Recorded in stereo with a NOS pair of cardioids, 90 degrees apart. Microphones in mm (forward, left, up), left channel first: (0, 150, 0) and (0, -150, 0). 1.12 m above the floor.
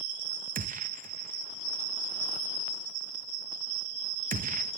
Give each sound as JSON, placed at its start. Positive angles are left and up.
{"t": 0.6, "sound": "a gunshot", "azimuth_deg": -30, "distance_m": 0.6}